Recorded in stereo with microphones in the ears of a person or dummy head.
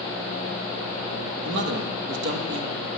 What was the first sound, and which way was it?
A man speaking, 65° right (ahead or behind).